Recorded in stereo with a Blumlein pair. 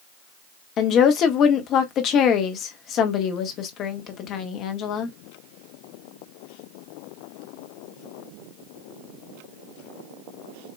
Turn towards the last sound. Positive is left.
turn(degrees=35)